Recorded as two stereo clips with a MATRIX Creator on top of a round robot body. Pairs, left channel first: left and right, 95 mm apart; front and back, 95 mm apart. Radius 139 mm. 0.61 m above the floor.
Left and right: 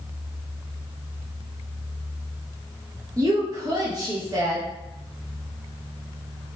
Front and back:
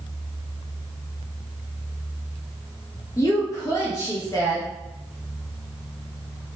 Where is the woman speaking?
45° right, 0.8 m.